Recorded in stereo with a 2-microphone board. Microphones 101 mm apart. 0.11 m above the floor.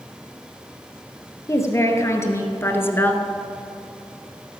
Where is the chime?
I don't hear a chime.